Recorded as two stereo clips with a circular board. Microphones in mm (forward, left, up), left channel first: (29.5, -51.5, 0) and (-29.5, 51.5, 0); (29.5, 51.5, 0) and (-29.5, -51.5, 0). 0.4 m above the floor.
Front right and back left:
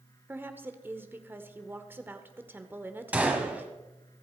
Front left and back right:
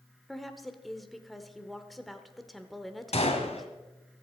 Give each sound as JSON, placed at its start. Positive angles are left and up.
{"t": 0.3, "sound": "a woman speaking", "azimuth_deg": 150, "distance_m": 1.1}
{"t": 3.1, "sound": "a gunshot", "azimuth_deg": 45, "distance_m": 1.9}